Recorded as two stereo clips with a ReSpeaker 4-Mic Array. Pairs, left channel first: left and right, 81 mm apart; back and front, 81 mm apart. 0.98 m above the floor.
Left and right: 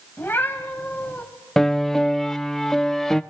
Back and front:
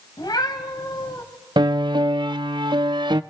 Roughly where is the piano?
Ahead.